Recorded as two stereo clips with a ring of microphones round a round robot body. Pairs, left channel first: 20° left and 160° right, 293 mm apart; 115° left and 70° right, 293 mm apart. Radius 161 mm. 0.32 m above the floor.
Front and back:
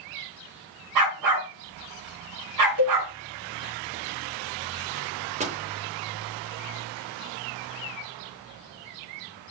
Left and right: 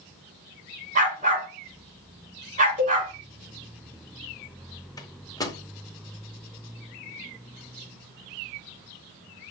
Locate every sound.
0.9 s a dog barking: 135° right, 1.7 m
2.8 s a cowbell: 135° right, 4 m
5.0 s a microwave: 175° left, 0.8 m